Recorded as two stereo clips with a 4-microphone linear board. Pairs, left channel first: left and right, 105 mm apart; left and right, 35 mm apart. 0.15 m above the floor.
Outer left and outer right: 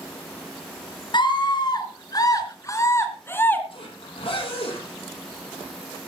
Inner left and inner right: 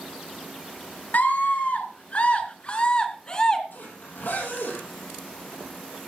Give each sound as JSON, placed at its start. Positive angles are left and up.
{"t": 1.1, "sound": "a scream", "side_deg": 50, "distance_m": 2.5}
{"t": 3.7, "sound": "a zipper", "side_deg": 55, "distance_m": 5.5}